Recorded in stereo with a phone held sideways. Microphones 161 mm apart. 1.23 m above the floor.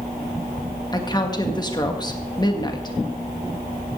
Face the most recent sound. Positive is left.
turn(degrees=25)  # may be behind; listen again after turning